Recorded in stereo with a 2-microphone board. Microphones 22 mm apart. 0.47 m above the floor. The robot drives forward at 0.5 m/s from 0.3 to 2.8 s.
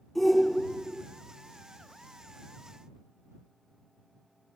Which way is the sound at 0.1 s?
5° left (ahead or behind).